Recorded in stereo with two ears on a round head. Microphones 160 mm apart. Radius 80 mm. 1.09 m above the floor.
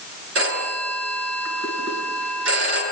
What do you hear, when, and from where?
0.3 s a phone ringing: 80° right, 9 m